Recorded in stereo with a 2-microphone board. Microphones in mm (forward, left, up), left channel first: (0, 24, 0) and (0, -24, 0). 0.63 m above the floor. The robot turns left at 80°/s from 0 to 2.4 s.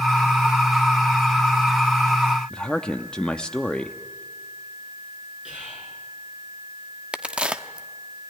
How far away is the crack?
About 0.8 m.